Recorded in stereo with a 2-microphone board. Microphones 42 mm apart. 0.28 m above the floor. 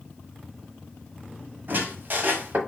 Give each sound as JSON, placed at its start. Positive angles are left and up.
{"t": 1.7, "sound": "a squeak", "side_deg": -50, "distance_m": 0.9}